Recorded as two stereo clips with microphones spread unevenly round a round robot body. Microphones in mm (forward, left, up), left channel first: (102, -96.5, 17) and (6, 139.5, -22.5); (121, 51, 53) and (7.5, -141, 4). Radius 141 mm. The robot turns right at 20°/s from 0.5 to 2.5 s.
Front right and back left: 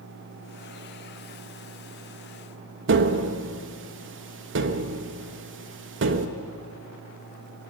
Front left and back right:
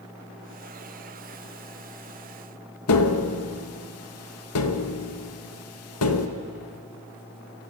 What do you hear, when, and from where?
2.9 s tapping: 85° left, 1.3 m